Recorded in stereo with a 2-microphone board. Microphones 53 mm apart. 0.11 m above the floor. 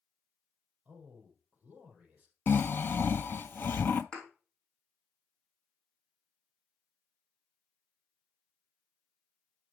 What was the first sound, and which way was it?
A man speaking, 25° right (ahead or behind).